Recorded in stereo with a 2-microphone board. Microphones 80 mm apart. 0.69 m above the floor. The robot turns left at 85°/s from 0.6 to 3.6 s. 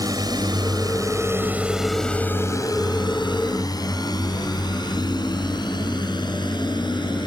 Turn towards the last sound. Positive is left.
turn(degrees=75)  # may be behind; listen again after turning